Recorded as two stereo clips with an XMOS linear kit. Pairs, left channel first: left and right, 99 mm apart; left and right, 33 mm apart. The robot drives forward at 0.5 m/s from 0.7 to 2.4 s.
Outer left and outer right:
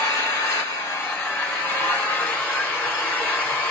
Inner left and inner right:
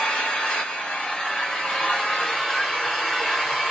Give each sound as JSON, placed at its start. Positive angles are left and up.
{"t": 0.0, "sound": "an engine running", "side_deg": 35, "distance_m": 1.4}